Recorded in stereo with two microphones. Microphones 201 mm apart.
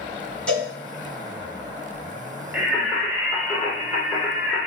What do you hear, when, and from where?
0.5 s a cowbell: 5° left (ahead or behind), 2.5 m
2.5 s singing: 10° right (ahead or behind), 1.8 m